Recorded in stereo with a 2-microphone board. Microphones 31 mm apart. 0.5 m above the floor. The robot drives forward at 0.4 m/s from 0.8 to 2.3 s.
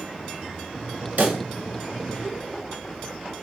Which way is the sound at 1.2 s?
60° right (ahead or behind).